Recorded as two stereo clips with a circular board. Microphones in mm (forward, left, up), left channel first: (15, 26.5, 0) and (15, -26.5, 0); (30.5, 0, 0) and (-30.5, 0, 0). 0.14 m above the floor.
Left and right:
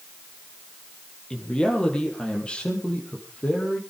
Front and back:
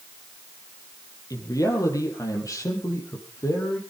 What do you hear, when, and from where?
1.3 s a man speaking: 15° left, 4 m; by 3.8 s 25° left, 5 m